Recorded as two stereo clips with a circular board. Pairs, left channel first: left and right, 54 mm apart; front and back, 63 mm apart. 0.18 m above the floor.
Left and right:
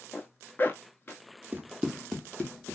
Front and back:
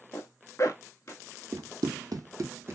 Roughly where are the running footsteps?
Behind right.